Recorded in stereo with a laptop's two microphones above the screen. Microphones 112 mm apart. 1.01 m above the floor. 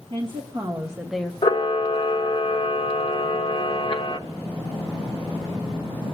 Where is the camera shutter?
50° left (ahead or behind), 0.9 m.